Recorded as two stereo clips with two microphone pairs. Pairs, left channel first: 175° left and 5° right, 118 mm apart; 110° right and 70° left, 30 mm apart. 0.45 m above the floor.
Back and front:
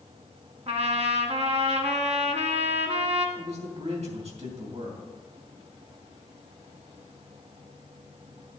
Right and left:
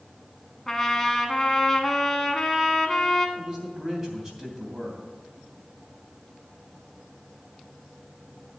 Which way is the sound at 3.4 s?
Straight ahead.